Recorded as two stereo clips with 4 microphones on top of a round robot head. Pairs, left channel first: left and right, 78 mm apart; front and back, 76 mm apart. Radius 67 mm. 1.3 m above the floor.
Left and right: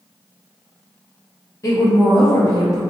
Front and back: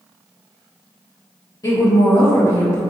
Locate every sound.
1.6 s a woman speaking: 40° left, 1.2 m